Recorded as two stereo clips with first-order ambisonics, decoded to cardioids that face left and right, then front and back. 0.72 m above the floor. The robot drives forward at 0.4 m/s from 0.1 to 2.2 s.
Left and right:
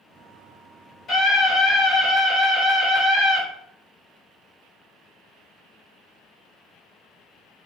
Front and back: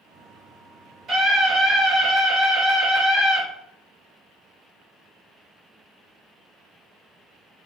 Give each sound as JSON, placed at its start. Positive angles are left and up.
{"t": 1.1, "sound": "a scream", "azimuth_deg": 135, "distance_m": 1.5}